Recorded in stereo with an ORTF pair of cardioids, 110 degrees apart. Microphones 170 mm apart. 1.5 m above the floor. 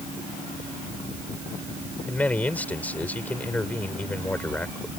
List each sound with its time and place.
2.1 s a man speaking: 10° left